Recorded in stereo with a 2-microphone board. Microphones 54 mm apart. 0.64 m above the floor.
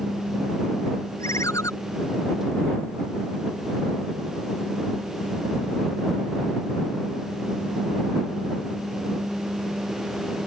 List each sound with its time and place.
1.2 s a ringtone: 75° left (ahead or behind)